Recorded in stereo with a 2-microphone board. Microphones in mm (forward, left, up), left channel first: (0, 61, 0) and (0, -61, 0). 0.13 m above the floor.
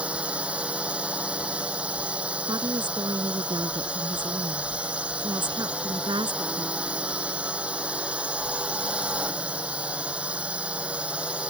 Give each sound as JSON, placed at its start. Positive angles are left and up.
{"t": 0.0, "sound": "a drone", "side_deg": -10}
{"t": 2.5, "sound": "a woman speaking", "side_deg": -40}